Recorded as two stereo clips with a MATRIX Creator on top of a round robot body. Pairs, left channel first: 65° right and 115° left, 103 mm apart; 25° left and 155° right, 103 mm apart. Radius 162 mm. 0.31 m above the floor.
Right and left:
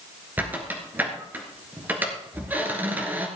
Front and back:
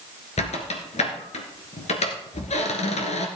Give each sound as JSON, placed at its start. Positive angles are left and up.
{"t": 0.4, "sound": "a squeak", "azimuth_deg": 40, "distance_m": 1.6}